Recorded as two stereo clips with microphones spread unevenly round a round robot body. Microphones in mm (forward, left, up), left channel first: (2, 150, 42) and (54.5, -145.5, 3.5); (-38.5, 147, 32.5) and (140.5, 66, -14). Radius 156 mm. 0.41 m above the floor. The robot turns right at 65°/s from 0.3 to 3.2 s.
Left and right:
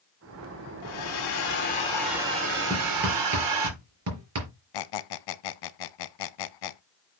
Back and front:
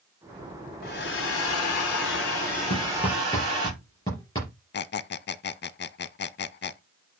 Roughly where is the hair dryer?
Left.